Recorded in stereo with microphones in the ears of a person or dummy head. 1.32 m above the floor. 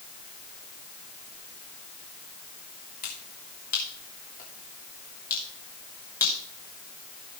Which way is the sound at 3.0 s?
50° left (ahead or behind).